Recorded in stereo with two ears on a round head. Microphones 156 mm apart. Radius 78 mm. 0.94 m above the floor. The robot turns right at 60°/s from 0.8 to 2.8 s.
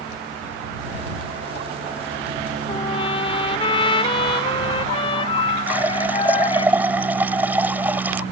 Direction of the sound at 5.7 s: 10° right (ahead or behind).